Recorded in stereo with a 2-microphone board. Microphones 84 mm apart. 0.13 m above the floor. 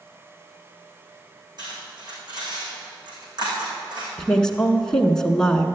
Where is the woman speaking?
10° left (ahead or behind), 1.1 m.